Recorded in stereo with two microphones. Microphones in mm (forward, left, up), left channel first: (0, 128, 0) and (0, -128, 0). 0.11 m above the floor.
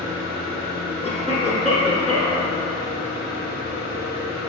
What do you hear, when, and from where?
0.0 s an engine running: 40° left (ahead or behind), 1.4 m
1.0 s a cough: 25° left (ahead or behind), 1.2 m